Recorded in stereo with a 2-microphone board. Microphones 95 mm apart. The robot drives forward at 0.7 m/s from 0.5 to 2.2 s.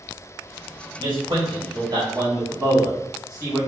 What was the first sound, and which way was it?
A man speaking, 60° right (ahead or behind).